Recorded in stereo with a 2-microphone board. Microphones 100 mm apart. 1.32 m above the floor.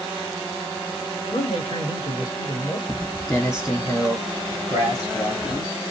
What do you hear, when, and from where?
1.3 s a man speaking: 50° left (ahead or behind), 1.9 m
2.9 s footsteps: 15° left (ahead or behind), 1.8 m; by 5.7 s 45° left (ahead or behind), 1.8 m